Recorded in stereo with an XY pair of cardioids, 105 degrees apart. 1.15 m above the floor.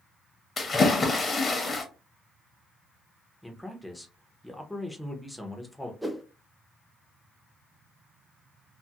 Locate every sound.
0.6 s a splash: 30° left, 0.8 m
3.4 s a man speaking: 5° left, 0.7 m
6.0 s a whoosh: 5° right, 0.5 m